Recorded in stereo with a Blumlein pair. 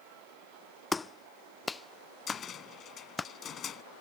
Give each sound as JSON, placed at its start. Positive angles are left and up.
{"t": 0.9, "sound": "a clap", "azimuth_deg": 10}
{"t": 2.3, "sound": "a cupboard door", "azimuth_deg": 25}